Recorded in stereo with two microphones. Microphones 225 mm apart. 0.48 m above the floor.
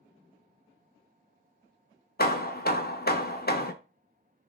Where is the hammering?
45° left (ahead or behind), 0.5 m.